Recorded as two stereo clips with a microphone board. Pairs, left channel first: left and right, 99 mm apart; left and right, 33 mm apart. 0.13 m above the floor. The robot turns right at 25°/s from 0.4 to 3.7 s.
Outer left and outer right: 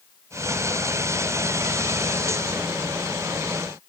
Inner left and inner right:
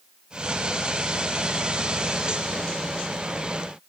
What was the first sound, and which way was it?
Only background noise.